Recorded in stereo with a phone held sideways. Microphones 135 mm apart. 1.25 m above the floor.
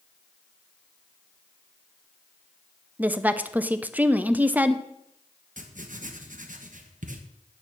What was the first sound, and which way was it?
A woman speaking, 10° right (ahead or behind).